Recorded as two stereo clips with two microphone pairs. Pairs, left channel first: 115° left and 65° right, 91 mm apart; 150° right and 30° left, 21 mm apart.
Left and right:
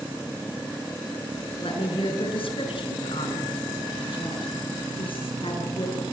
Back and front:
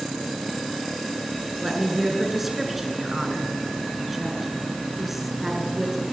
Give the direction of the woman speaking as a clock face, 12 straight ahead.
8 o'clock.